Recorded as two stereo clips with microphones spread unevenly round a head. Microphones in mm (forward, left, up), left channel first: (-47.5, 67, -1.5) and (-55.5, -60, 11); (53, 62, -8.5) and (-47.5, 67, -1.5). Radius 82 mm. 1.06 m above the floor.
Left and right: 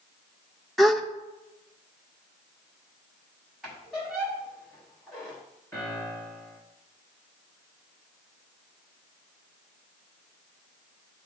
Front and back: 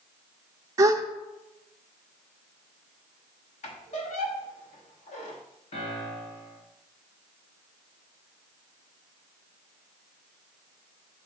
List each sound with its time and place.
0.8 s a gasp: 165° left, 0.6 m
3.6 s a squeak: 5° right, 1.5 m
5.7 s a piano: 5° left, 2.5 m